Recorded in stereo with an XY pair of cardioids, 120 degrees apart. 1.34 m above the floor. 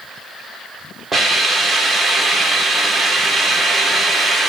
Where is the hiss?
25° right, 2.5 m.